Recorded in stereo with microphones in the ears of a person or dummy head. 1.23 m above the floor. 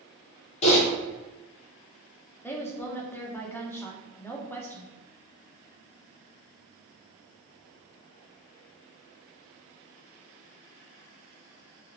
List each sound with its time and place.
0.6 s typing on a keyboard: 35° left (ahead or behind), 1.2 m
2.4 s a woman speaking: 10° left (ahead or behind), 0.5 m